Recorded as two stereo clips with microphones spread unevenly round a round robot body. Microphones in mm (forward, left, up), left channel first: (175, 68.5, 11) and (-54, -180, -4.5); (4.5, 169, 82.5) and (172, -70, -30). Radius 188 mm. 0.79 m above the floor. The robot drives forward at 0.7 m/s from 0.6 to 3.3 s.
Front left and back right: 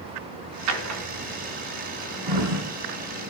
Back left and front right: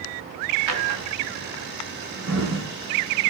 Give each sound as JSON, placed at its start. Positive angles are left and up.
{"t": 0.7, "sound": "a drawer", "azimuth_deg": -90, "distance_m": 3.0}